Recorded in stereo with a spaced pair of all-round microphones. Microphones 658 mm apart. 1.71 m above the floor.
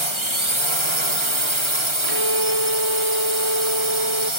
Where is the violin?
45° right (ahead or behind).